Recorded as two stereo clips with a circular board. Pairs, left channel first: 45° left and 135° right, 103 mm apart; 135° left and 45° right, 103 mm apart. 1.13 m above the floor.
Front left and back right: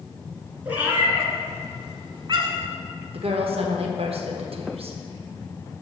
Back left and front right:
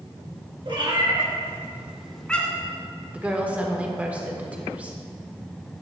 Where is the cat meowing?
60° right, 1.9 m; by 2.7 s 165° right, 1.7 m.